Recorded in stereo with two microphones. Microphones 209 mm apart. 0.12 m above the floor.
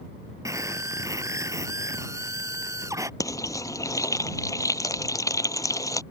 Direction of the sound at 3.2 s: 15° left (ahead or behind).